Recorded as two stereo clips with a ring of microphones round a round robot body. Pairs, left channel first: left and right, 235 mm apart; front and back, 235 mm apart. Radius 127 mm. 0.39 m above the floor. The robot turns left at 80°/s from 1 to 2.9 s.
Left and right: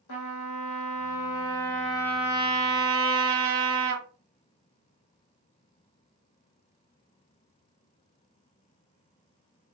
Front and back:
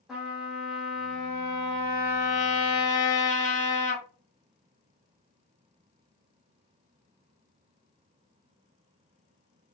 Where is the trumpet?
90° left, 0.9 m; by 4.0 s 60° right, 0.9 m.